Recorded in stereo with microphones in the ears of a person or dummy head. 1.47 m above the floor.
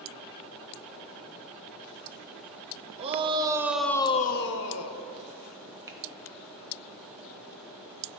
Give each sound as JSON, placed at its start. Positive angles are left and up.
{"t": 3.0, "sound": "a shout", "side_deg": -35, "distance_m": 1.2}
{"t": 5.9, "sound": "a finger snap", "side_deg": -20, "distance_m": 1.1}